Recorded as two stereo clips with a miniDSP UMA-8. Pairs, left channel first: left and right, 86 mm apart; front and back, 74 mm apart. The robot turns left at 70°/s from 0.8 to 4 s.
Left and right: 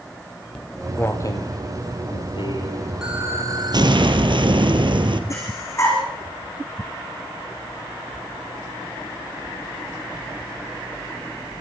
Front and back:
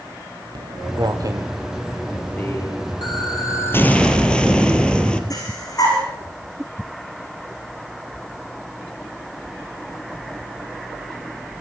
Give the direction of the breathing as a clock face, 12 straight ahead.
11 o'clock.